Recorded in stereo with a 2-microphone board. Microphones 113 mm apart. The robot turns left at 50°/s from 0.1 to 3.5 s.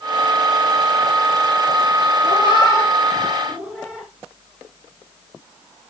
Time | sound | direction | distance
2.2 | a cat meowing | 55° left (ahead or behind) | 4.5 m